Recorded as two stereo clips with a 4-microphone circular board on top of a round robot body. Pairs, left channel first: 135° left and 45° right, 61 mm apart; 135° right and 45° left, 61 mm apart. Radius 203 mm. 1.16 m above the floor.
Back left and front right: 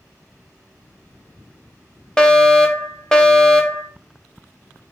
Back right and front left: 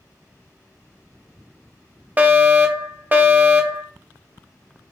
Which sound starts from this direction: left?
A fire alarm, at 2.2 s.